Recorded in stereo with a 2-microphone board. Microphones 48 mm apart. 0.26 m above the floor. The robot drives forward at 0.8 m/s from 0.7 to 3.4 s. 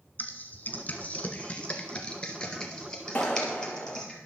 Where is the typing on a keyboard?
45° left (ahead or behind), 1.2 m; by 4.2 s 15° left (ahead or behind), 3 m.